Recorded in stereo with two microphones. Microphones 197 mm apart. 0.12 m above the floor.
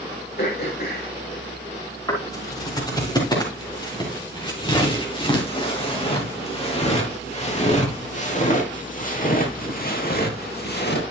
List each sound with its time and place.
0.4 s throat clearing: 50° left (ahead or behind), 3.5 m
2.1 s footsteps: 20° left (ahead or behind), 6.5 m; by 11.0 s 60° left (ahead or behind), 2.5 m